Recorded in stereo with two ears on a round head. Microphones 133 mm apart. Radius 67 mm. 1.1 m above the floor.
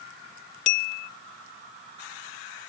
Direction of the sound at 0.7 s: 50° left (ahead or behind).